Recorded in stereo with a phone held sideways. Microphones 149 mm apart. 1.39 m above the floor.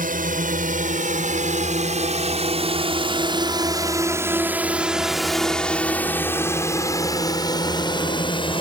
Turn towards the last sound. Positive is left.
turn(degrees=35)  # may be behind; listen again after turning